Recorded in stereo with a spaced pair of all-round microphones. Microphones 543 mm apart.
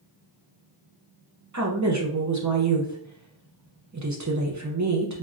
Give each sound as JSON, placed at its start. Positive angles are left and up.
{"t": 1.5, "sound": "a woman speaking", "side_deg": -35, "distance_m": 0.6}